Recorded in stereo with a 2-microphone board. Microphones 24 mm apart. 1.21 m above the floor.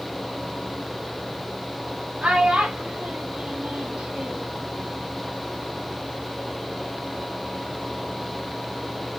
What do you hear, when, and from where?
2.2 s a child speaking: 45° right (ahead or behind), 1.8 m; by 4.6 s 5° right (ahead or behind), 1.1 m